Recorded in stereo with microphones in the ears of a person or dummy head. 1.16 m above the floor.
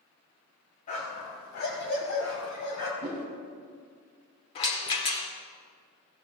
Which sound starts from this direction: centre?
A whoosh, at 3.0 s.